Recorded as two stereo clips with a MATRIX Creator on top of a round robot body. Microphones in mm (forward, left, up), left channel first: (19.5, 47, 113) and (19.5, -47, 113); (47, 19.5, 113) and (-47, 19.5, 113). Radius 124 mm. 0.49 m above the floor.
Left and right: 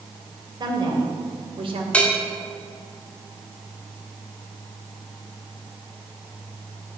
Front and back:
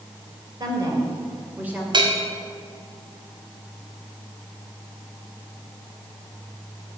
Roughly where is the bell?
Behind.